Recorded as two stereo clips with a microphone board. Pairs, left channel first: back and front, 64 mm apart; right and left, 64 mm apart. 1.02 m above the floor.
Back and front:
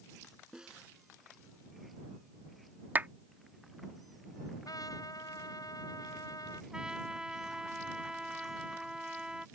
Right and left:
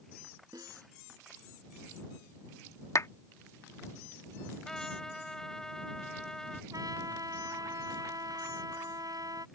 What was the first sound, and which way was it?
A snare drum, 75° left.